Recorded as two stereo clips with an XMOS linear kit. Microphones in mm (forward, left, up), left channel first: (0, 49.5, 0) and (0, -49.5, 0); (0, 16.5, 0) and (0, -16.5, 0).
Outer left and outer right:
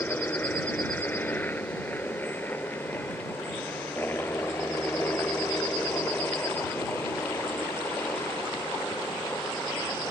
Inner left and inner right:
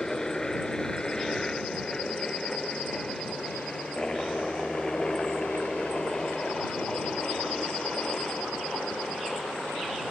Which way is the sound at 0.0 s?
20° left (ahead or behind).